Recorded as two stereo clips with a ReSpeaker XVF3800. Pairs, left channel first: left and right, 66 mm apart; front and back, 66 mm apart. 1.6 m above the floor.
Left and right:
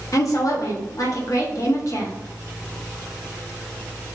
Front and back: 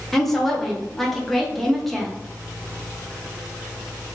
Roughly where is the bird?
I don't hear a bird.